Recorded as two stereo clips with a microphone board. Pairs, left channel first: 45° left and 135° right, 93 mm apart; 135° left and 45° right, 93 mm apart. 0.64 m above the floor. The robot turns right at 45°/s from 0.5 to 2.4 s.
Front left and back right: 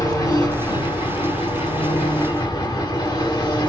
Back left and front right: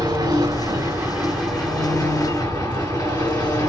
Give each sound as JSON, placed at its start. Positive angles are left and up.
{"t": 0.0, "sound": "an engine running", "azimuth_deg": 0, "distance_m": 1.9}